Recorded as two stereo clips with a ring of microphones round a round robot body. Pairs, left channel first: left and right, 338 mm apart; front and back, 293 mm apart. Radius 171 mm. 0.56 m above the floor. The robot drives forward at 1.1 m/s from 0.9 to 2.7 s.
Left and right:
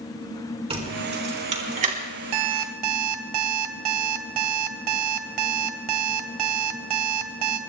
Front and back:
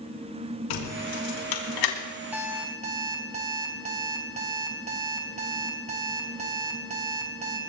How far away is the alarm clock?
About 1.5 m.